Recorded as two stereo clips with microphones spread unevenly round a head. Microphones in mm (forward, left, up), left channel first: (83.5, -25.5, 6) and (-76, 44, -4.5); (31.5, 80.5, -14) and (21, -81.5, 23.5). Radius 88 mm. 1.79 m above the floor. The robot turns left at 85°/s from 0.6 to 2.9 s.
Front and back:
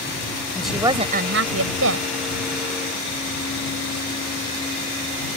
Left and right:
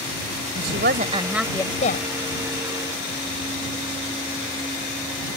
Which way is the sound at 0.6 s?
110° right.